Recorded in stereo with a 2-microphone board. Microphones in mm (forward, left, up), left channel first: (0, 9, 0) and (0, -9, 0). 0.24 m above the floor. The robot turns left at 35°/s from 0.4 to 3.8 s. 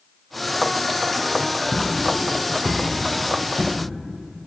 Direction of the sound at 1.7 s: 5° right (ahead or behind).